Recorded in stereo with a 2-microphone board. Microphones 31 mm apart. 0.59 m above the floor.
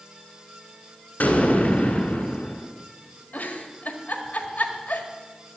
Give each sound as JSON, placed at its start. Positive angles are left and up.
{"t": 1.2, "sound": "an explosion", "side_deg": 60, "distance_m": 2.0}
{"t": 3.3, "sound": "a giggle", "side_deg": 70, "distance_m": 1.7}